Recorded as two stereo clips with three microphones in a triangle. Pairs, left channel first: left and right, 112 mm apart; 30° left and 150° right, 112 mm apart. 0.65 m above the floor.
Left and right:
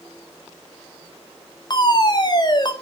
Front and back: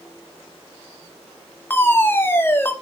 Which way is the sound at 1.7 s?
90° left.